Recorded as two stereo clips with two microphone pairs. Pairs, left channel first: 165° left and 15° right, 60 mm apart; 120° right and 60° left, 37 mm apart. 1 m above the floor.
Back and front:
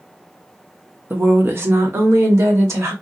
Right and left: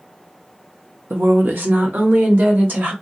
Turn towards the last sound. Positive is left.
turn(degrees=25)